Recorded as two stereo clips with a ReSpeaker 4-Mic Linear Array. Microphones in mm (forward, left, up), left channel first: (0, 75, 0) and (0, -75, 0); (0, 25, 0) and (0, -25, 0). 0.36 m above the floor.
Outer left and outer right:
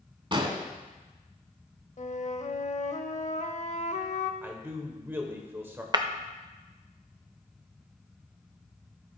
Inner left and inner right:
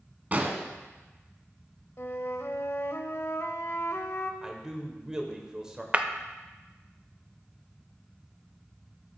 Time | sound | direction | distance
0.3 | an explosion | 35° right (ahead or behind) | 0.9 m
2.0 | a flute | 55° left (ahead or behind) | 0.6 m
4.4 | a man speaking | 15° right (ahead or behind) | 1.1 m
5.9 | breaking glass | 30° right (ahead or behind) | 0.5 m